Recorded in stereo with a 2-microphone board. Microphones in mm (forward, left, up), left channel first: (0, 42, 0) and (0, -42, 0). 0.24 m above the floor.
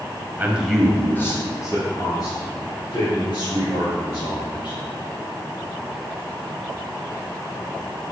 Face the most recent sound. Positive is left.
turn(degrees=65)  # may be behind; listen again after turning